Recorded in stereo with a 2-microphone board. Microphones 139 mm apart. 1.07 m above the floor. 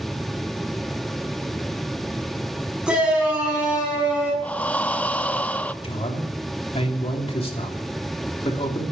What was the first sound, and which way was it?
A shout, 5° right (ahead or behind).